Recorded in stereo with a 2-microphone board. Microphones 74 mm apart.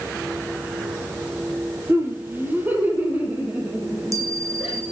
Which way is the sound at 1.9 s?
35° right (ahead or behind).